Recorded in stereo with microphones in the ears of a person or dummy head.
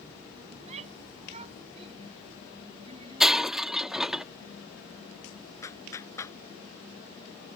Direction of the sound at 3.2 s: Centre (ahead or behind).